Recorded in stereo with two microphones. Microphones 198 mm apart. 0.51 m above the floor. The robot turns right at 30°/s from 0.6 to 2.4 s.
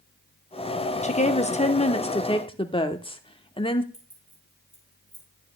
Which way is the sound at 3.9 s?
75° right (ahead or behind).